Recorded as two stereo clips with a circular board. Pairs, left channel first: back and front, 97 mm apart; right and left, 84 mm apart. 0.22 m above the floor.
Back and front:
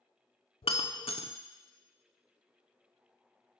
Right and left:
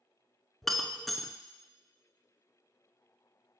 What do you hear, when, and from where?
0.6 s breaking glass: straight behind, 0.5 m